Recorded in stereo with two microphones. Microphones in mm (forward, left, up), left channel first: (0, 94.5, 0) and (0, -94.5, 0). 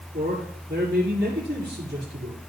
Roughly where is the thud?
No thud in this recording.